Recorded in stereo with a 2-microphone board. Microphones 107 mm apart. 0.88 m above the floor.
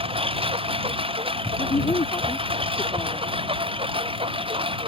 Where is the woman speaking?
55° left (ahead or behind).